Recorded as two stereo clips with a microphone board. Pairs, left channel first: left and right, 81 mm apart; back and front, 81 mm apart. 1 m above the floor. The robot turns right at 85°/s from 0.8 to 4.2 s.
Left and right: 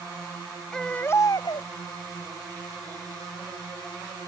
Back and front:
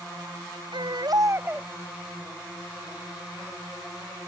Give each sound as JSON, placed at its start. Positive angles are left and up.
{"t": 0.7, "sound": "a baby crying", "azimuth_deg": 10}